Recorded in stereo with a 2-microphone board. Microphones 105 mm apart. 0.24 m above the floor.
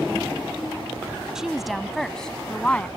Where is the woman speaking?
5° right (ahead or behind); by 2.9 s 15° left (ahead or behind).